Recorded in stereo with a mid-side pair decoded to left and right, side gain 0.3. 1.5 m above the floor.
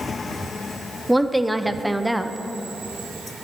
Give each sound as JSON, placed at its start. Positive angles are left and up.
{"t": 1.1, "sound": "a woman speaking", "azimuth_deg": -5, "distance_m": 0.7}